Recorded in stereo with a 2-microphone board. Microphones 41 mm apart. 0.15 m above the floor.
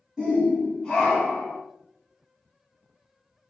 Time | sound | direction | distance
0.2 | a shout | 15° right (ahead or behind) | 1.1 m